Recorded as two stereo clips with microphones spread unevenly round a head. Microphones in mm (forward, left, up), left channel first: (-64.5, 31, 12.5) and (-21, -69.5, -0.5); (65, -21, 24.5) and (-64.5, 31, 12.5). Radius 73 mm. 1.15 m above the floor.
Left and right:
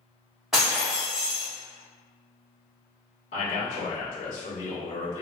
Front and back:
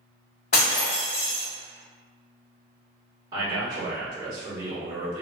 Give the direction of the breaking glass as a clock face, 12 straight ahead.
11 o'clock.